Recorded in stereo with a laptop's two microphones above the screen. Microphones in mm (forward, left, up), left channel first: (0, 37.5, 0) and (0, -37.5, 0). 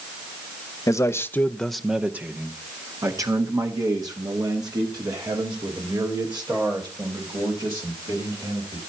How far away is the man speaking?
About 0.7 m.